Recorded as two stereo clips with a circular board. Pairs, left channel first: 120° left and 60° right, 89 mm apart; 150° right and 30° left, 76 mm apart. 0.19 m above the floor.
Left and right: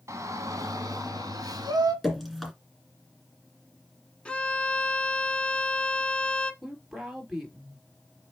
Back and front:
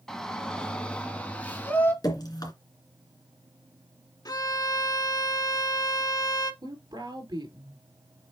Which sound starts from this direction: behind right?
Dripping, at 2.0 s.